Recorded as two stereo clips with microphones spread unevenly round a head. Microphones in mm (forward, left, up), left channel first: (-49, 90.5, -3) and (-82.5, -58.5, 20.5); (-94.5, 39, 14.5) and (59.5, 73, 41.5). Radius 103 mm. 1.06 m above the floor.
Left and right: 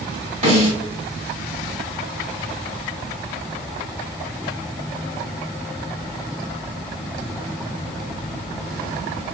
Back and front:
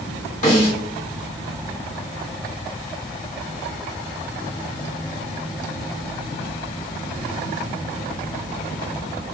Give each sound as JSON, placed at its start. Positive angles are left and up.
{"t": 0.4, "sound": "a snare drum", "azimuth_deg": -140, "distance_m": 1.3}